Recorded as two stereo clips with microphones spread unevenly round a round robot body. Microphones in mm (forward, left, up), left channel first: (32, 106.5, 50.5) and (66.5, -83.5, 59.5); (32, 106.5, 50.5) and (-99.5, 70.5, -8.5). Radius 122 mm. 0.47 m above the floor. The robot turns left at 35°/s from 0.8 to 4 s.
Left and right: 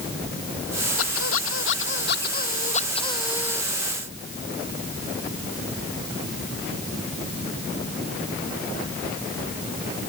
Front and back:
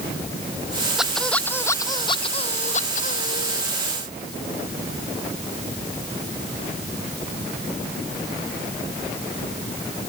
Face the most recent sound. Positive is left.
turn(degrees=5)